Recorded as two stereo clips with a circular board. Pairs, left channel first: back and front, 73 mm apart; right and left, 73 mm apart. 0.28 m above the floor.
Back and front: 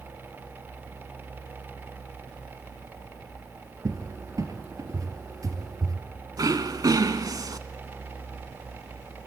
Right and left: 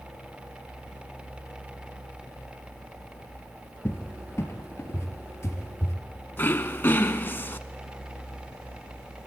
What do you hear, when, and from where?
3.9 s a cupboard door: 40° right, 3.5 m
6.4 s throat clearing: 30° right, 1.2 m